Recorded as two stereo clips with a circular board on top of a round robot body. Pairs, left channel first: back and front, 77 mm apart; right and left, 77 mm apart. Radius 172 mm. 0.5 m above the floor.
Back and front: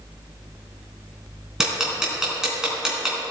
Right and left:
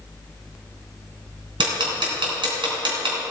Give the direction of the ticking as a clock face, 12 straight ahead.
9 o'clock.